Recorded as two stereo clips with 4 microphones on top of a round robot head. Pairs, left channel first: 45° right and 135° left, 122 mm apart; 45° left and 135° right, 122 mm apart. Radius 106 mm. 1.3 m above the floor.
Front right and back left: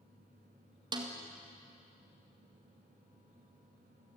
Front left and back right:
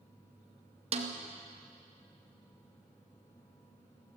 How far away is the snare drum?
About 2 m.